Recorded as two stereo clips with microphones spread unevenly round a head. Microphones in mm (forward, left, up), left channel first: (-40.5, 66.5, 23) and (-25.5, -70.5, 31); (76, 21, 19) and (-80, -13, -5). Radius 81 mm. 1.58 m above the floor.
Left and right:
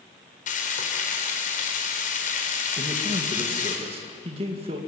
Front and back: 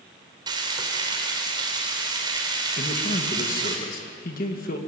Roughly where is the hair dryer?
No hair dryer in this recording.